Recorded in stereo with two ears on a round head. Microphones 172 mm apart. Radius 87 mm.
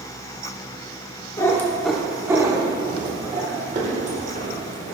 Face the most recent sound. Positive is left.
turn(degrees=-45)  # may be behind; listen again after turning